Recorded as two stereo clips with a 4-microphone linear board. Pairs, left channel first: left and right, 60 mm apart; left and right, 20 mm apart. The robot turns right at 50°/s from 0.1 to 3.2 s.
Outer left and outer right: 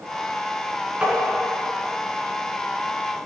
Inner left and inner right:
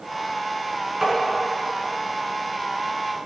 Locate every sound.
1.0 s tapping: 20° right (ahead or behind), 5.5 m; by 1.1 s 15° right (ahead or behind), 5.5 m